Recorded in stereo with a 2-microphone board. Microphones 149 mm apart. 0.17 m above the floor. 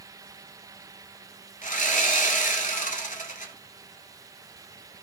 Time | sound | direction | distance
1.6 | sawing | 70° left (ahead or behind) | 0.8 m